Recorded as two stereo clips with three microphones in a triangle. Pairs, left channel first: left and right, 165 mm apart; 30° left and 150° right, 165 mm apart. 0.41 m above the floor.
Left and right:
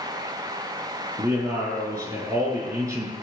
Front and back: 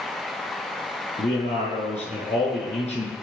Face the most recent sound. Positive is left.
turn(degrees=-15)